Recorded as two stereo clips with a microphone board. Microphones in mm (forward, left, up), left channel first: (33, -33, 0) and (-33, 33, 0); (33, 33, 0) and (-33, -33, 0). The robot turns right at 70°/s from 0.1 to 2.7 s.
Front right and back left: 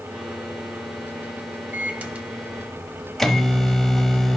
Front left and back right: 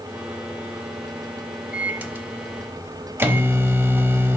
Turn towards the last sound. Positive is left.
turn(degrees=-125)